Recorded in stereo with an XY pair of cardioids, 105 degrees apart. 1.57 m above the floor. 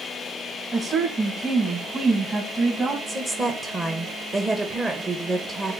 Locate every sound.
0.7 s a woman speaking: 30° right, 2.5 m
3.1 s a woman speaking: 25° right, 1.3 m